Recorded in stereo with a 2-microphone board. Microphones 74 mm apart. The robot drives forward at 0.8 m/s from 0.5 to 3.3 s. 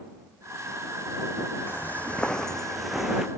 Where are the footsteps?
30° left (ahead or behind); by 3.3 s 5° right (ahead or behind).